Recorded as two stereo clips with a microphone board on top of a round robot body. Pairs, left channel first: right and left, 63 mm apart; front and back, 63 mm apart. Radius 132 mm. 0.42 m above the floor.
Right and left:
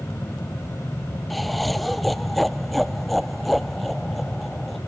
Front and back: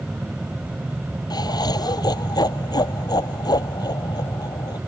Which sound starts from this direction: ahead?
Laughter, at 1.3 s.